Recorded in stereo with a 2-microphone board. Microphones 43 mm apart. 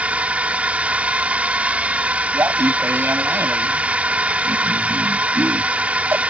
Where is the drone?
35° right (ahead or behind).